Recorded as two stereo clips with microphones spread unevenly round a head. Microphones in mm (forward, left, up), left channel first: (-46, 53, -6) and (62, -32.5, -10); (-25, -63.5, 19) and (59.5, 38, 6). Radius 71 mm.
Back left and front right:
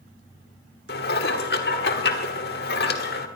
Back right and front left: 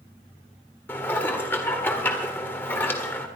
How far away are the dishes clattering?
About 1.6 m.